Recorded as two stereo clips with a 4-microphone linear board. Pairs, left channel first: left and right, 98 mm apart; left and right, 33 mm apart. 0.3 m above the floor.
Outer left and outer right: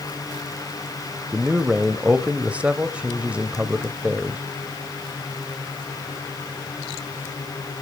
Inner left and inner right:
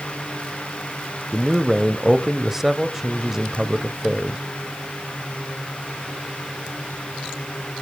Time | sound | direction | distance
1.3 | a man speaking | 15° right (ahead or behind) | 1.0 m